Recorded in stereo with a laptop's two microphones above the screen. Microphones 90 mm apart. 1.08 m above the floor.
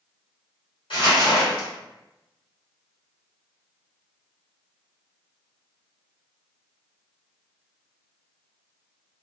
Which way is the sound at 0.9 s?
65° left (ahead or behind).